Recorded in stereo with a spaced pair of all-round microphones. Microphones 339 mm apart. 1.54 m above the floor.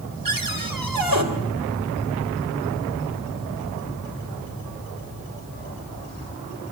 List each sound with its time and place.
0.2 s a cupboard door: 70° right (ahead or behind), 3 m